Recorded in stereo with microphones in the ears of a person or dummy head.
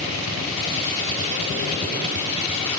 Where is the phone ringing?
I don't hear a phone ringing.